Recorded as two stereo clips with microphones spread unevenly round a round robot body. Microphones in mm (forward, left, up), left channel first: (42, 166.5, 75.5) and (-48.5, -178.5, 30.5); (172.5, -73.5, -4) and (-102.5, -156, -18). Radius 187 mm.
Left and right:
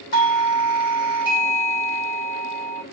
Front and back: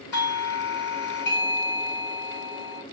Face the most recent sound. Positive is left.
turn(degrees=90)